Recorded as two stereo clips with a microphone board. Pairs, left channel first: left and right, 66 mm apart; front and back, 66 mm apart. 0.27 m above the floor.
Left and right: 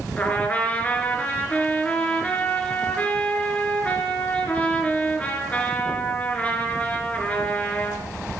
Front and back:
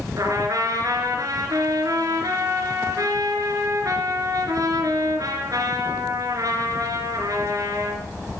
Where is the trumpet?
160° left, 3 m.